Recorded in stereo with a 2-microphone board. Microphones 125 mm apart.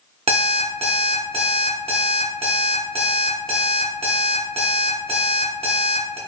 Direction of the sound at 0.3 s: 55° right (ahead or behind).